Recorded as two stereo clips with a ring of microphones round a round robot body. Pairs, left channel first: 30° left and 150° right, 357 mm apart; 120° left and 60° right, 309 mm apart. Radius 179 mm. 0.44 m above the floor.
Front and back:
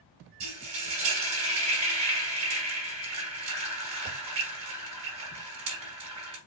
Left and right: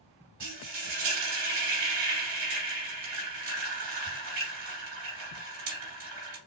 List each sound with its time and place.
0.4 s frying: 110° right, 2.5 m